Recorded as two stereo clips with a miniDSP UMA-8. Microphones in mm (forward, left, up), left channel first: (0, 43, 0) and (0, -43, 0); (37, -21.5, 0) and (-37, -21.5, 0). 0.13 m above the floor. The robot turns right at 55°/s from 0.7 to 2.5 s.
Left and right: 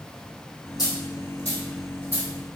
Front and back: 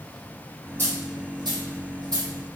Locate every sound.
0.8 s a dropped coin: 125° left, 1.7 m; by 2.3 s 150° right, 1.7 m